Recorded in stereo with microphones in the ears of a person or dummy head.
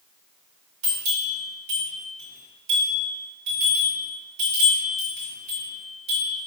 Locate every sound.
0.8 s a bell: 35° right (ahead or behind), 1.4 m